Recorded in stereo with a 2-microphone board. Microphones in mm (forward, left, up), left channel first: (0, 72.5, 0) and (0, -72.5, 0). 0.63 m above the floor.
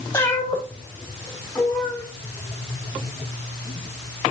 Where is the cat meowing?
15° left (ahead or behind), 3.5 m; by 2.0 s 5° right (ahead or behind), 5 m.